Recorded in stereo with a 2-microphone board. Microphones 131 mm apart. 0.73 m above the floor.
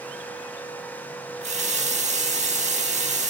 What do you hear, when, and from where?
1.4 s a running tap: 65° right (ahead or behind), 1.0 m